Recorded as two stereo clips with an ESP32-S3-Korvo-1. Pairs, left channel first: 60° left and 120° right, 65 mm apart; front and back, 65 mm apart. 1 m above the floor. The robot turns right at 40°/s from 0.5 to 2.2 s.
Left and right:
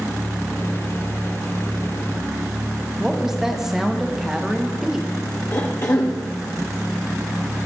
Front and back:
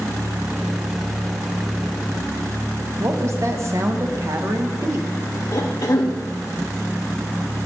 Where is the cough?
20° left, 0.6 m.